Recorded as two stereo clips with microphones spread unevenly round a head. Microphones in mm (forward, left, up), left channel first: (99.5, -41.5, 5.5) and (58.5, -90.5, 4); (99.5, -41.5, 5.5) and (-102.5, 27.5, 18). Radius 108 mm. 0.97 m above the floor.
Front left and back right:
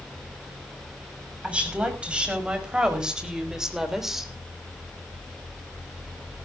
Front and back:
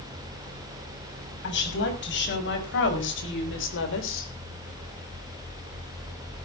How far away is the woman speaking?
About 6.5 m.